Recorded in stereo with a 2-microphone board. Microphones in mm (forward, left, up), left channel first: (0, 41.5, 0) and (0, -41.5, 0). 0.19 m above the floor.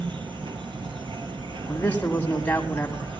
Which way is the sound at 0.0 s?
70° right (ahead or behind).